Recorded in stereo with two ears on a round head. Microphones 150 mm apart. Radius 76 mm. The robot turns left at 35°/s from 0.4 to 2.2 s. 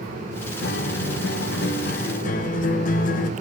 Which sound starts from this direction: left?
A guitar, at 0.6 s.